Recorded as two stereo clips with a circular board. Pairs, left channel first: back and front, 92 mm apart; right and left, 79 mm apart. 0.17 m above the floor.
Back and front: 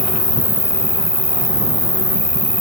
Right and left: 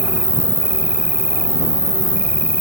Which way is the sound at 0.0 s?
15° left.